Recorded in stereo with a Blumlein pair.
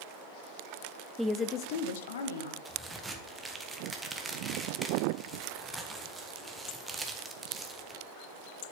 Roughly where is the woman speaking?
Ahead.